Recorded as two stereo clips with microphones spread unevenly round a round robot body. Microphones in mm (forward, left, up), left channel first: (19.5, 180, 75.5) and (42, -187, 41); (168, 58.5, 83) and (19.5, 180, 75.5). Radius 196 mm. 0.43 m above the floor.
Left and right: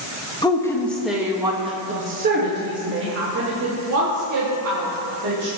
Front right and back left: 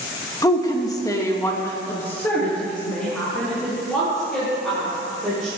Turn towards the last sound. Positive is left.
turn(degrees=-130)